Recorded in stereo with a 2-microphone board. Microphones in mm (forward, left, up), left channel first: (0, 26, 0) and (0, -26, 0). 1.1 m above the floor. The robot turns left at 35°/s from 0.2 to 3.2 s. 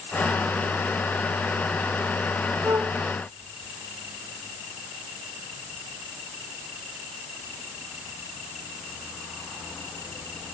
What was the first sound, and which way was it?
A flute, 85° right.